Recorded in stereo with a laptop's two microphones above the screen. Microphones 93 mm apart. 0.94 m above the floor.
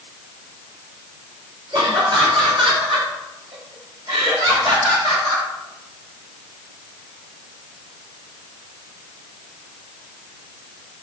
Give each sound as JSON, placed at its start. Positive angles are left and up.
{"t": 1.7, "sound": "laughter", "side_deg": -65, "distance_m": 2.5}